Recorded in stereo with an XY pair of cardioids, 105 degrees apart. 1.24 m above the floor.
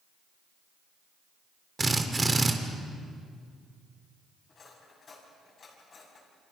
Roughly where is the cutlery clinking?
Ahead left.